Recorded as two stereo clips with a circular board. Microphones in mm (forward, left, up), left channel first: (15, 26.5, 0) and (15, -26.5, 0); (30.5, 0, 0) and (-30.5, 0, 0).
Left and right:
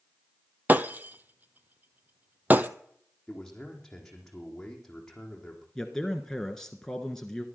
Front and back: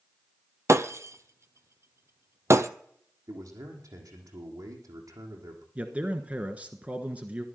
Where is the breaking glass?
140° right, 0.8 m.